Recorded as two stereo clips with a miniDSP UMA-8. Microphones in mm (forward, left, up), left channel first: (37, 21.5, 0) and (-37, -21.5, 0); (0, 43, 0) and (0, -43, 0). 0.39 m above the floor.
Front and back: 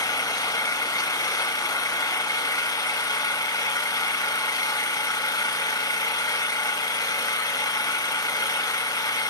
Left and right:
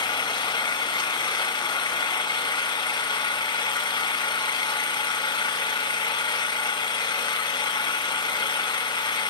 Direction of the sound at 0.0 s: 70° left.